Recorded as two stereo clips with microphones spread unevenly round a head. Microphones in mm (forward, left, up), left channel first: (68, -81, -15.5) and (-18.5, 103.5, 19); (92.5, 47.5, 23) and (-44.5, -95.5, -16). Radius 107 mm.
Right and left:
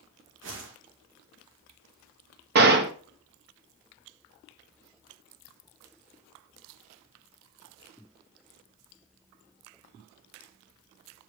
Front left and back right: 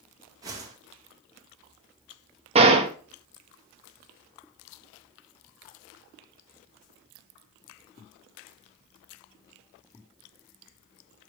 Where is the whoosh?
155° left, 1.9 m.